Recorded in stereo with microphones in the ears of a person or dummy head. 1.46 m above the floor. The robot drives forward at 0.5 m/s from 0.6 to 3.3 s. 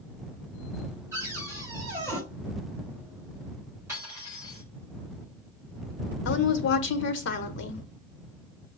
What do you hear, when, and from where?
1.1 s a cupboard door: 15° right (ahead or behind), 1.9 m; by 2.2 s 10° right (ahead or behind), 2.5 m
3.9 s cutlery clinking: 10° right (ahead or behind), 3.5 m
6.2 s a woman speaking: 75° left (ahead or behind), 0.9 m